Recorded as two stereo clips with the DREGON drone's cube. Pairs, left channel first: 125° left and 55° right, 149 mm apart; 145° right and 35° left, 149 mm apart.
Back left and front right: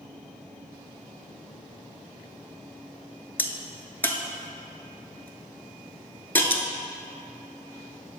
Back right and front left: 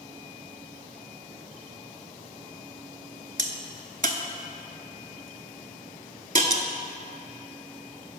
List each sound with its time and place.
3.4 s a crack: 50° left, 0.6 m